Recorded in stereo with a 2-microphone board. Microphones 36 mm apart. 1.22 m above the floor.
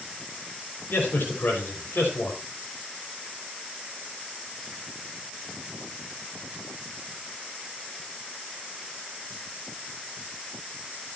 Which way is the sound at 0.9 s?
80° left.